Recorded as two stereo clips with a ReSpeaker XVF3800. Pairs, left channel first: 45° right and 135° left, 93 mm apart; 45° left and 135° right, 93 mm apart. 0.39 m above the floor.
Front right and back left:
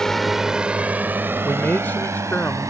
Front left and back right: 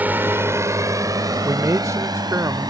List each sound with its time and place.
0.0 s a drone: 115° right; by 2.7 s 175° right
1.4 s a man speaking: 105° right